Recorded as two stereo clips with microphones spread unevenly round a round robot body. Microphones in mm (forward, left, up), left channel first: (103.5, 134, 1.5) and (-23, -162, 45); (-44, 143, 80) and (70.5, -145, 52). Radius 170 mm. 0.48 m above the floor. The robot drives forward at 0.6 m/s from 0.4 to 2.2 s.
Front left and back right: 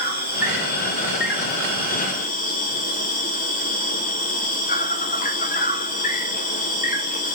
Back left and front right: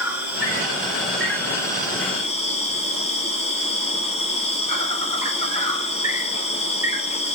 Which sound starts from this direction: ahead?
An insect, at 0.0 s.